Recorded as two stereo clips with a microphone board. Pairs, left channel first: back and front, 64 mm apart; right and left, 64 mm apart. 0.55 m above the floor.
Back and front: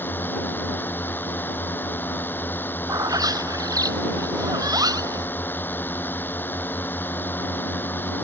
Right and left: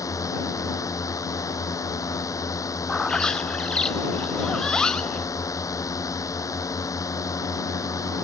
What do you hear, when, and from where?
0.0 s a drone: 120° right
2.9 s a bird: 10° right